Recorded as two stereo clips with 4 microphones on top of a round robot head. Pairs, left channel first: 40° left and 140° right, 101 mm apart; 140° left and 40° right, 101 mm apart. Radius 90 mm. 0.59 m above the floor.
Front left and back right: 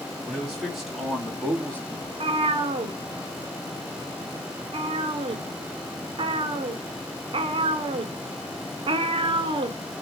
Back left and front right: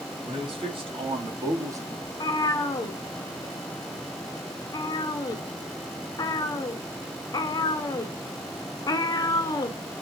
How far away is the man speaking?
About 2.5 m.